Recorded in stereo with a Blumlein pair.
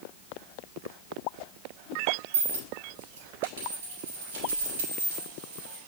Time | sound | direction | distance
2.3 | a dropped coin | 60° right | 3 m